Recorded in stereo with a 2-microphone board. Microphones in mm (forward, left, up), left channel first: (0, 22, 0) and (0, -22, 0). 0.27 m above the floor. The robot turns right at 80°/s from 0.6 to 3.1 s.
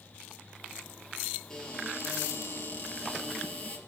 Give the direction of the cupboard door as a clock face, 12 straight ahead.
12 o'clock.